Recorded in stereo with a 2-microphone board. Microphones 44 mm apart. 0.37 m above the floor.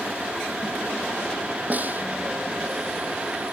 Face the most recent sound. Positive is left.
turn(degrees=-40)  # may be behind; listen again after turning